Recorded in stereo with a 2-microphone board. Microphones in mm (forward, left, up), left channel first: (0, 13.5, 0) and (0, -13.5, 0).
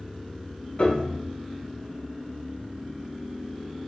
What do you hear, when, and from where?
0.8 s a piano: 40° left (ahead or behind), 0.8 m